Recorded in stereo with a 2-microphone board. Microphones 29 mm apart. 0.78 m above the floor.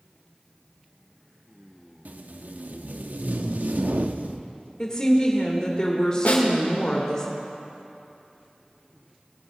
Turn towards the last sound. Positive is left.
turn(degrees=65)  # may be behind; listen again after turning